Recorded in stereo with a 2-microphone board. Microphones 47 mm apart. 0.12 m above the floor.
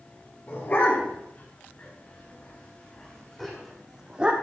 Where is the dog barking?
45° left (ahead or behind), 6.5 m; by 4.3 s 25° right (ahead or behind), 2.5 m.